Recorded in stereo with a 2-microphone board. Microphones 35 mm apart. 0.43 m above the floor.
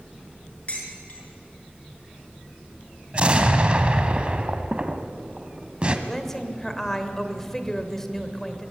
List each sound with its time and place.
0.7 s dishes clattering: 35° left (ahead or behind), 4.5 m
3.1 s an explosion: 35° right (ahead or behind), 1.4 m
6.1 s a woman speaking: 10° left (ahead or behind), 1.9 m